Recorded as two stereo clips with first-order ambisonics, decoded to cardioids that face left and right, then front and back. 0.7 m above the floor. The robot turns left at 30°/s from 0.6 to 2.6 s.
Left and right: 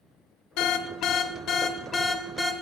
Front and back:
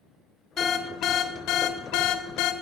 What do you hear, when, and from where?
0.6 s an alarm: 65° left, 0.6 m; by 2.5 s 5° left, 0.6 m